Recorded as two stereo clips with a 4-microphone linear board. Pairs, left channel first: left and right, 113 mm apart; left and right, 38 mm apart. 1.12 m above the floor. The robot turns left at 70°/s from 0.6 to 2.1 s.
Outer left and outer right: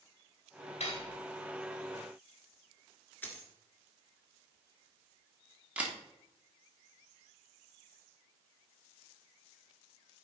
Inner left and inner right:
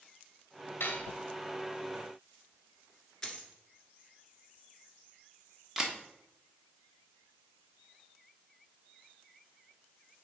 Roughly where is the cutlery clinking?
Left.